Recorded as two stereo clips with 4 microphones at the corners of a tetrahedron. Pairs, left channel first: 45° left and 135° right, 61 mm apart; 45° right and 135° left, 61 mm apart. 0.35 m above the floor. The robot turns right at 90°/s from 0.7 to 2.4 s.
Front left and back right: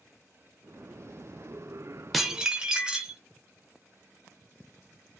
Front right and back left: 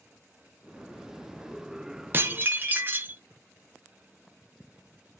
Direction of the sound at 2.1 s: 130° left.